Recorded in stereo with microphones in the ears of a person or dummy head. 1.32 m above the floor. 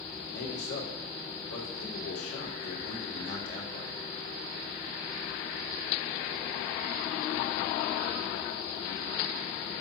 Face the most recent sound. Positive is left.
turn(degrees=85)